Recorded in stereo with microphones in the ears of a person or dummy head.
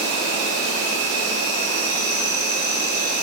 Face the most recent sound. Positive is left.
turn(degrees=-75)  # may be behind; listen again after turning